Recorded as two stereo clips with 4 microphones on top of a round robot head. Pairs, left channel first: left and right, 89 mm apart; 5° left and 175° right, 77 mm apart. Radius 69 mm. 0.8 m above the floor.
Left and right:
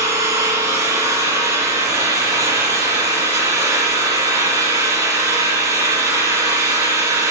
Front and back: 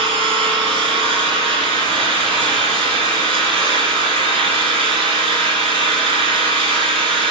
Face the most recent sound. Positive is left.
turn(degrees=-160)